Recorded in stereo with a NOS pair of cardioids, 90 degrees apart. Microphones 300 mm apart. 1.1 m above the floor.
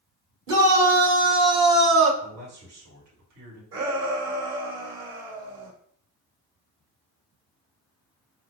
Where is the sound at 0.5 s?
55° right, 2 m; by 2.1 s 50° right, 1.2 m.